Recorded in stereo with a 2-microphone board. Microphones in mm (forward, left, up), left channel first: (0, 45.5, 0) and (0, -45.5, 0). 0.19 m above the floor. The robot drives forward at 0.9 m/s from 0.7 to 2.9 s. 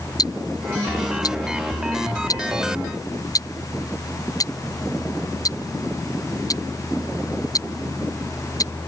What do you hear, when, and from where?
0.2 s ticking: 45° left (ahead or behind); by 8.7 s 40° left (ahead or behind)